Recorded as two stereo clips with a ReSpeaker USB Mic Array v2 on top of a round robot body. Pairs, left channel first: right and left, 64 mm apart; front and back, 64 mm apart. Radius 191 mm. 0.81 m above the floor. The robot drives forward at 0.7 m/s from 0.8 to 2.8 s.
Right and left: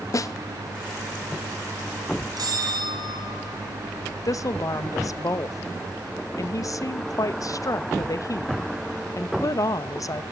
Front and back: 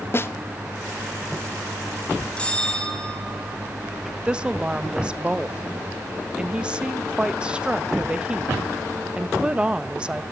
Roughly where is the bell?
Left.